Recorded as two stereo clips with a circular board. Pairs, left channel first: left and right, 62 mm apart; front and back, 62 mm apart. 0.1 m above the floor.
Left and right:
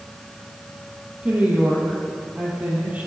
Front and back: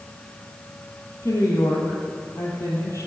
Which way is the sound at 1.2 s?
25° right.